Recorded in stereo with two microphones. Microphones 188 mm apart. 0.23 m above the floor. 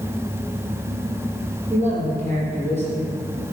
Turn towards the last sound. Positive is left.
turn(degrees=-35)  # may be behind; listen again after turning